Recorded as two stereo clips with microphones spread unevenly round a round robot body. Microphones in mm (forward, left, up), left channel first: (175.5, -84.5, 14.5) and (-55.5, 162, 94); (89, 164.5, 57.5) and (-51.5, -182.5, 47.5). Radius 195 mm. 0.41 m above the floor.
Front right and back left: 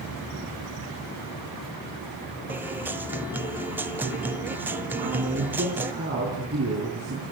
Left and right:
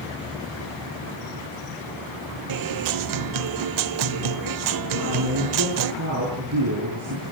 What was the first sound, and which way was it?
A guitar, 135° right.